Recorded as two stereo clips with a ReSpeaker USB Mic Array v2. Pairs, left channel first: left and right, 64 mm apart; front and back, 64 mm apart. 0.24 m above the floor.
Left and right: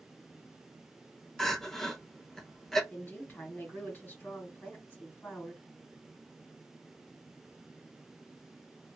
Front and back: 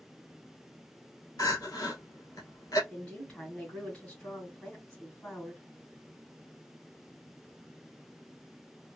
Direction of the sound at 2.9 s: 55° left.